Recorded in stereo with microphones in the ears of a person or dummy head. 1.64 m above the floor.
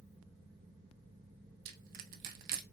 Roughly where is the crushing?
Right.